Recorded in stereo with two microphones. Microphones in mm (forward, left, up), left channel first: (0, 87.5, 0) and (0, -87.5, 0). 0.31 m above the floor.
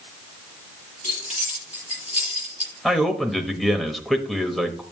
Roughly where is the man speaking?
Centre.